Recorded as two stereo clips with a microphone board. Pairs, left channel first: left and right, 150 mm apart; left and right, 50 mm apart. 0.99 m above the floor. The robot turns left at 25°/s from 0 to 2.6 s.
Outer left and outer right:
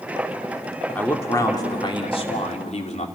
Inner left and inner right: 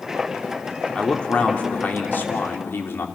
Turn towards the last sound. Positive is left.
turn(degrees=125)